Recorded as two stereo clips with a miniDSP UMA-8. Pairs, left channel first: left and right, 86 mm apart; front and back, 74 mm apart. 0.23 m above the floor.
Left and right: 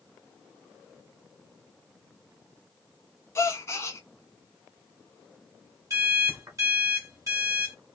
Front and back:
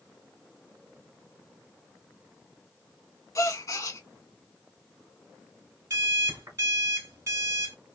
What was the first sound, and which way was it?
A gasp, 35° left.